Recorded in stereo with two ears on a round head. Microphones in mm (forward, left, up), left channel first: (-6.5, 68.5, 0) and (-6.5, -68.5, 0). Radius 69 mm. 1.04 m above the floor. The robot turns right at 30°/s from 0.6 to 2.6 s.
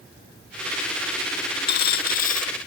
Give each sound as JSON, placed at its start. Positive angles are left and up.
{"t": 1.7, "sound": "a dropped coin", "side_deg": 75}